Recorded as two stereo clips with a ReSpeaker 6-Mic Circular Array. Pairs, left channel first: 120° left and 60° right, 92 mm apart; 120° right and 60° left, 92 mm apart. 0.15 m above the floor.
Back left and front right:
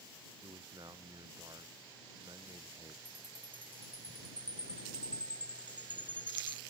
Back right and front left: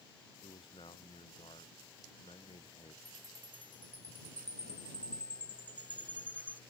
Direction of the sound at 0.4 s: 100° right.